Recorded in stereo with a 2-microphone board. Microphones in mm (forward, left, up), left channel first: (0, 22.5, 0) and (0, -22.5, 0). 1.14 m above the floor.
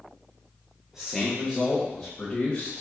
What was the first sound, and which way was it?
A man speaking, 10° right (ahead or behind).